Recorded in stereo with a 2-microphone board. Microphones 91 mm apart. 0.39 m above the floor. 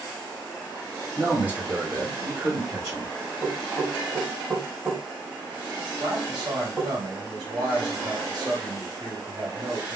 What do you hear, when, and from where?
1.2 s a man speaking: 15° right (ahead or behind), 1.7 m; by 3.1 s 25° right (ahead or behind), 1.9 m
3.4 s knocking: 25° right (ahead or behind), 1.4 m
6.0 s a man speaking: 55° right (ahead or behind), 1.8 m